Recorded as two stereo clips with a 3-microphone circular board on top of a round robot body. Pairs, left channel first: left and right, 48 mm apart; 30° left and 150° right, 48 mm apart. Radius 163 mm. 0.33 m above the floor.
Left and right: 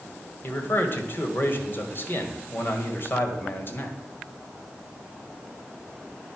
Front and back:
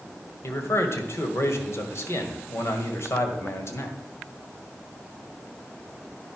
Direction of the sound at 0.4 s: 50° left.